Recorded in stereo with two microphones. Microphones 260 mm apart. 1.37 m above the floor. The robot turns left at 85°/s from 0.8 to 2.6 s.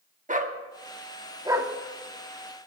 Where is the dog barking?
30° right (ahead or behind), 0.9 m; by 1.7 s 5° right (ahead or behind), 0.9 m.